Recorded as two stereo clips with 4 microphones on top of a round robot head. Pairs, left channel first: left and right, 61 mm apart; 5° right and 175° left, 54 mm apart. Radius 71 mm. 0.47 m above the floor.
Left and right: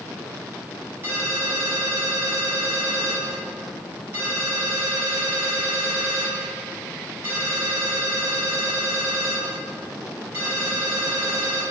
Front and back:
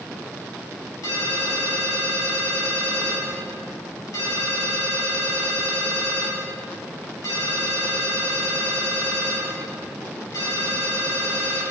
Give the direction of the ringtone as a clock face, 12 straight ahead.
1 o'clock.